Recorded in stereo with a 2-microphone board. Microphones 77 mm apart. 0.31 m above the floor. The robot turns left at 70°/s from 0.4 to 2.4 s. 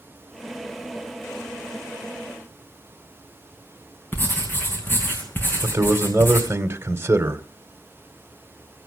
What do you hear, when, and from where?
4.1 s writing: 25° left (ahead or behind), 4 m
5.6 s a man speaking: 30° right (ahead or behind), 1.8 m